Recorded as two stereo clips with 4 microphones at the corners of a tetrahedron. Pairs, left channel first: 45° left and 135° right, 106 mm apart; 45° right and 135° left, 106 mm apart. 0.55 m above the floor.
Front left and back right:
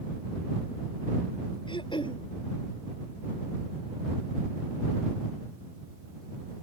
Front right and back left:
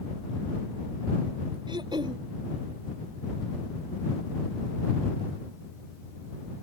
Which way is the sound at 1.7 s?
90° left.